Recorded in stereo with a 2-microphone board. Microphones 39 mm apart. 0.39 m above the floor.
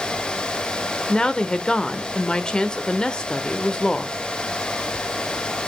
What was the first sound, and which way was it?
A woman speaking, 20° left (ahead or behind).